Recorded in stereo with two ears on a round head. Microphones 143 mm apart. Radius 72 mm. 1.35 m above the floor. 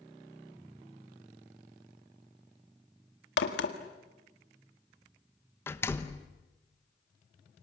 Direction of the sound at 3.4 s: 80° left.